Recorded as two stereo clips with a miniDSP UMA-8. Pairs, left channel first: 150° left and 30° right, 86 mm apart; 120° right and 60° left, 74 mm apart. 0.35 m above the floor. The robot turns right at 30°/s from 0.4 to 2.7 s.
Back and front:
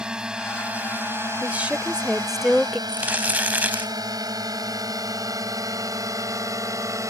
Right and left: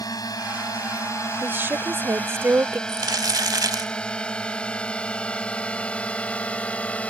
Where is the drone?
110° right; by 7.1 s 55° right.